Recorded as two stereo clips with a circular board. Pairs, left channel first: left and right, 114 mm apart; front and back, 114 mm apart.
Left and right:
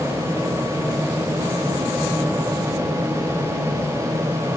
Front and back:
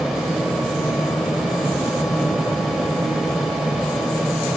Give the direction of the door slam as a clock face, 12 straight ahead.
No door slam in this recording.